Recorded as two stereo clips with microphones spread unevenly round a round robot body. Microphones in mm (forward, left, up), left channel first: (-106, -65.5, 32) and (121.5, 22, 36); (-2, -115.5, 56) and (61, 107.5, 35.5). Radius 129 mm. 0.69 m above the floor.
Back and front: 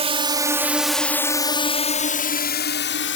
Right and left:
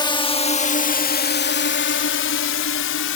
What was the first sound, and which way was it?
A drone, 35° right.